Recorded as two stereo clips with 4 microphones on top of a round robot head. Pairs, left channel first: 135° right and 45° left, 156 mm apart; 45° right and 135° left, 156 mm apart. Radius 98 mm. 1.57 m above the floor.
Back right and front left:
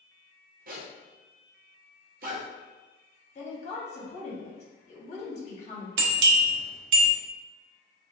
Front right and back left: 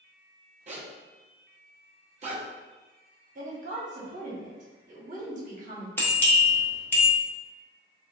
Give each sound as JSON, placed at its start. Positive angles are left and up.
{"t": 0.7, "sound": "a zipper", "azimuth_deg": 80, "distance_m": 0.6}
{"t": 3.4, "sound": "a woman speaking", "azimuth_deg": 175, "distance_m": 1.0}
{"t": 6.0, "sound": "a bell", "azimuth_deg": 35, "distance_m": 0.6}